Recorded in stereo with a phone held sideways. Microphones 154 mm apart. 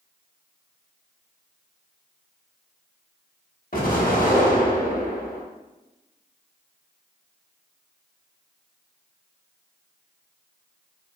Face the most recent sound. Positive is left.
turn(degrees=65)  # may be behind; listen again after turning